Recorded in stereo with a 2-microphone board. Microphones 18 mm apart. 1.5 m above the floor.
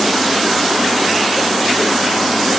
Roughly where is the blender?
No blender in this recording.